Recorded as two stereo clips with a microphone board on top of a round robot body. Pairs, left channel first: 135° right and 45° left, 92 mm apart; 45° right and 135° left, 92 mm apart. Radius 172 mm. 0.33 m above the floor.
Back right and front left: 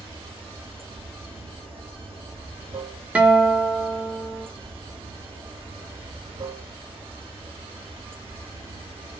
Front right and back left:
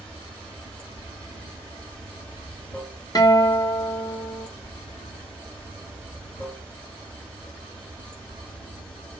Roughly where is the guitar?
Ahead right.